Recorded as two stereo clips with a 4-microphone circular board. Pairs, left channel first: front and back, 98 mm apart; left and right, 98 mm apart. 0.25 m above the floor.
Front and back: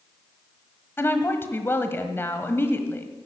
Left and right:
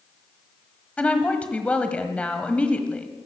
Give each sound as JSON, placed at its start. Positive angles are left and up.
{"t": 1.0, "sound": "a woman speaking", "azimuth_deg": 30, "distance_m": 1.3}